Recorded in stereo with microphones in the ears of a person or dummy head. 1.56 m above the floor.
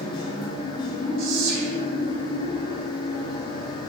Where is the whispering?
75° right (ahead or behind), 3.5 m.